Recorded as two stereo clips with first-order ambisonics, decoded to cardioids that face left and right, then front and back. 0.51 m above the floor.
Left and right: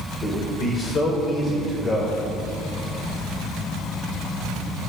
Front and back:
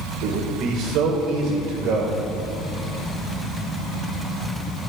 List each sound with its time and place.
0.2 s a man speaking: 155° left, 1.6 m